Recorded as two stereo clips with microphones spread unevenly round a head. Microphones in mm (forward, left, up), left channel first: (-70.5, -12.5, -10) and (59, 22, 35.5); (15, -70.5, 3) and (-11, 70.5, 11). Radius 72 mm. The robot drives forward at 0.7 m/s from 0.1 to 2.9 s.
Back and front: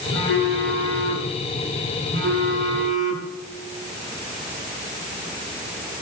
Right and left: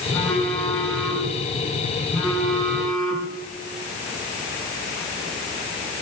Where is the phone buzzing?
5° left, 8 m.